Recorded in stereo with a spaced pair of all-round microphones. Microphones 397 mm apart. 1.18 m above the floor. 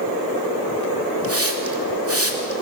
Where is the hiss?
35° right (ahead or behind), 2.5 m.